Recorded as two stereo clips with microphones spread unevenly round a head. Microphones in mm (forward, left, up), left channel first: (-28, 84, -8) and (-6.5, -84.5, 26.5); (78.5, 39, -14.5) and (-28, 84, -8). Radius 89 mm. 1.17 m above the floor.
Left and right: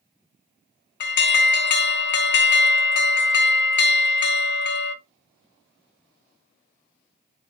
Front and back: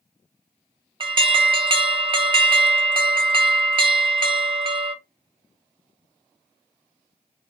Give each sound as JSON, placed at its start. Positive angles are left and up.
{"t": 1.0, "sound": "an alarm", "azimuth_deg": 110, "distance_m": 0.7}